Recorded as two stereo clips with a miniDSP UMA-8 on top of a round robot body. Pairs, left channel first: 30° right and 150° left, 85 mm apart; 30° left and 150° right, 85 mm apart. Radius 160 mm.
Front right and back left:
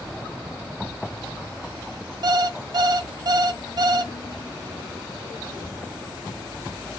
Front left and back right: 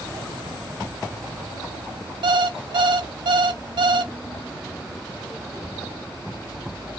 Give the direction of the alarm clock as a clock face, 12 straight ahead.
6 o'clock.